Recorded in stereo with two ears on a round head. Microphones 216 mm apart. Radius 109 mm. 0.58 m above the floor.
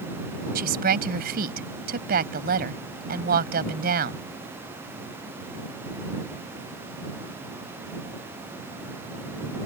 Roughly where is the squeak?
No squeak in this recording.